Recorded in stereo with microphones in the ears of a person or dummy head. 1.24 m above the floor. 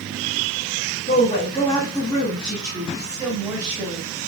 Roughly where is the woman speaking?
Left.